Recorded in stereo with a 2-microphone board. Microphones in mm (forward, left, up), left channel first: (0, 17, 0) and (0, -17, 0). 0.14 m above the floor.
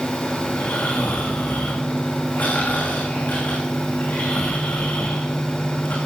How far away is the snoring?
About 5 m.